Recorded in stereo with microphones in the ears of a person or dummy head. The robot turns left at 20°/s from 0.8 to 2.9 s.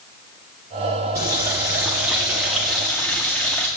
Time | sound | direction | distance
1.1 | a running tap | 15° right (ahead or behind) | 0.6 m